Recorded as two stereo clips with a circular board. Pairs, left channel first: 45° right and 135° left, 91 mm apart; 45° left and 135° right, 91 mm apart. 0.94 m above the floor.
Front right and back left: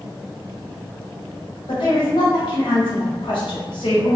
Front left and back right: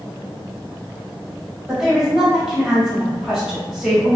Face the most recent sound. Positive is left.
turn(degrees=-50)